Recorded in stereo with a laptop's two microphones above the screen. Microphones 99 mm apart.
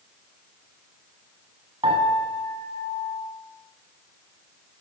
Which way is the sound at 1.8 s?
60° right (ahead or behind).